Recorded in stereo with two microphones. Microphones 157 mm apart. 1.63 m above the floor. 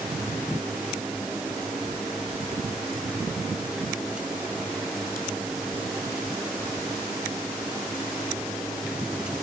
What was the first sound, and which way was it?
Only background noise.